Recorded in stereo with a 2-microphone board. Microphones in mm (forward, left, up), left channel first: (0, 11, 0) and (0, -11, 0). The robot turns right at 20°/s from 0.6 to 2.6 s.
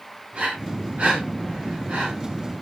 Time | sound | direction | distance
0.3 | breathing | 60° right (ahead or behind) | 5 m